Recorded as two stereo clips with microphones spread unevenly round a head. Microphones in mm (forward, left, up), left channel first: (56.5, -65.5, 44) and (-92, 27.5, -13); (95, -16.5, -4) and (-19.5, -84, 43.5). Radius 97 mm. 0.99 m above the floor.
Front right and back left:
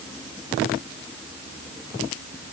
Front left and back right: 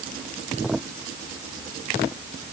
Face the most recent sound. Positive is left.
No sound to turn to.